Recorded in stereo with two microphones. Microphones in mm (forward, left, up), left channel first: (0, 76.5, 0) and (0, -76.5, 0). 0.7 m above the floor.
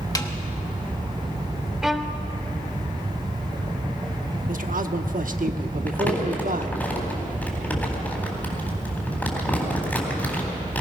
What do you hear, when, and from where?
0.1 s a snare drum: 25° left (ahead or behind), 1.2 m
1.8 s a violin: 5° right (ahead or behind), 0.8 m
4.5 s a man speaking: 65° right (ahead or behind), 1.0 m
5.9 s crumpling: 10° left (ahead or behind), 4 m